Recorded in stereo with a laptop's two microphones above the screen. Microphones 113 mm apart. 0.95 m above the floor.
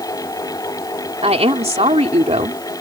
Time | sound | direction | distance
0.0 | a fan | 35° left (ahead or behind) | ?
1.2 | a woman speaking | 75° right (ahead or behind) | ?